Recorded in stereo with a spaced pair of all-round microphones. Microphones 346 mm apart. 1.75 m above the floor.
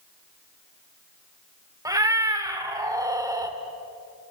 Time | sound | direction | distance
1.9 | a cat meowing | 10° right (ahead or behind) | 1.6 m